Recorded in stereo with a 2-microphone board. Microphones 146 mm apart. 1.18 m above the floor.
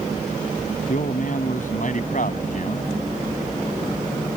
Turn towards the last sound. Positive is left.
turn(degrees=60)  # may be behind; listen again after turning